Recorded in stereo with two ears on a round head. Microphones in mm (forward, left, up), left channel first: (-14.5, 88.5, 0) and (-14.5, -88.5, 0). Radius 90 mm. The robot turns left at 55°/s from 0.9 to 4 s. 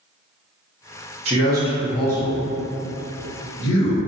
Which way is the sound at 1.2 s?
35° right (ahead or behind).